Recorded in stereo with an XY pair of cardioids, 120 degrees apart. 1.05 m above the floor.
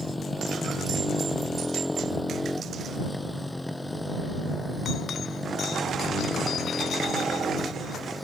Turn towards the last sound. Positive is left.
turn(degrees=5)